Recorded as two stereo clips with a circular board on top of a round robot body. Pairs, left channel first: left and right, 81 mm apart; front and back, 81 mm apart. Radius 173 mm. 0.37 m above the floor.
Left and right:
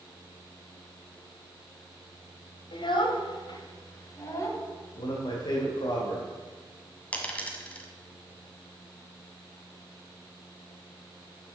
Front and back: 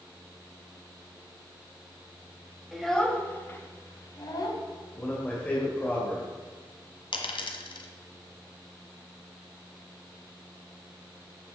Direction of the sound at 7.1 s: 15° left.